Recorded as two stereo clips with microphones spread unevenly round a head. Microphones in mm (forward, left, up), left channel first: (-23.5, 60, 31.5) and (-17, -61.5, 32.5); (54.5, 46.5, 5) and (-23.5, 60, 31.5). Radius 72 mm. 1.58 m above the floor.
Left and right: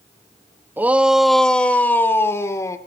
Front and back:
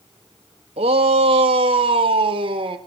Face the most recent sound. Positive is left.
turn(degrees=160)